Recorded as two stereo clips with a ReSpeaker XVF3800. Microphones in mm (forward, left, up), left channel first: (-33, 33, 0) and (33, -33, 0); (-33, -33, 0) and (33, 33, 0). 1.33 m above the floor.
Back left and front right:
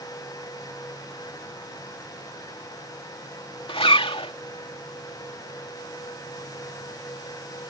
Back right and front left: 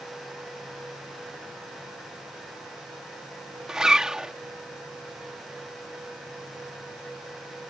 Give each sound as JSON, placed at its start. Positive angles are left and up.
{"t": 3.7, "sound": "a zipper", "azimuth_deg": 130}